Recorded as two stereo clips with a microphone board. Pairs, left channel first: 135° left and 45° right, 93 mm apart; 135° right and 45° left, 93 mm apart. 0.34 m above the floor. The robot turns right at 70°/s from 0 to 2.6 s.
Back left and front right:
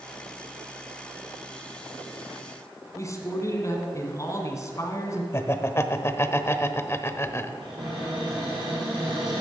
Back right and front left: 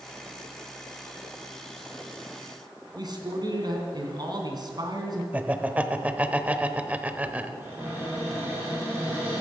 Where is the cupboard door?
20° right, 6.5 m.